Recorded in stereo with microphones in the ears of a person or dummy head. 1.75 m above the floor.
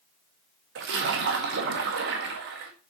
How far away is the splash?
About 1.7 m.